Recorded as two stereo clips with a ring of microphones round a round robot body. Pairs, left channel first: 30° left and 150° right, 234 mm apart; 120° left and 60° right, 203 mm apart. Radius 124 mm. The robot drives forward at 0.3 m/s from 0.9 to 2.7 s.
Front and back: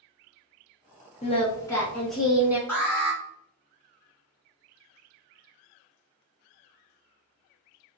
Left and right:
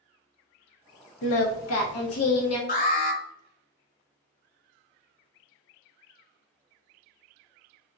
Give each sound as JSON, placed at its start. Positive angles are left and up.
{"t": 1.2, "sound": "singing", "azimuth_deg": 95, "distance_m": 0.6}
{"t": 2.7, "sound": "an alarm", "azimuth_deg": 110, "distance_m": 1.5}